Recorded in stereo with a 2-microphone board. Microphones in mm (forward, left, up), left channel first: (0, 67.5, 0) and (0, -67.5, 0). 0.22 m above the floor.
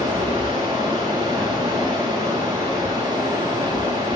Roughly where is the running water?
Right.